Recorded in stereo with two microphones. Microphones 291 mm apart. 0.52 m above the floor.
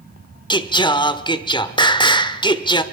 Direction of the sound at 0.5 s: 15° left (ahead or behind).